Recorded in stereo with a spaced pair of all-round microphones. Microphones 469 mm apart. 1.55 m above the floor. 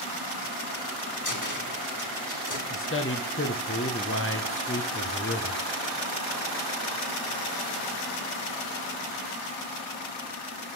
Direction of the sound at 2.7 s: 25° left (ahead or behind).